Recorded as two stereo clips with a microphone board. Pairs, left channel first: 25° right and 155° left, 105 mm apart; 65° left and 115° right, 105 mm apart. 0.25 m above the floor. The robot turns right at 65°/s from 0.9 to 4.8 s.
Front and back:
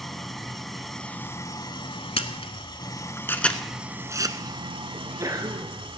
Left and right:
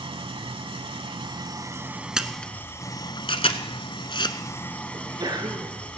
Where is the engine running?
110° right, 0.8 m; by 6.0 s 145° left, 0.8 m.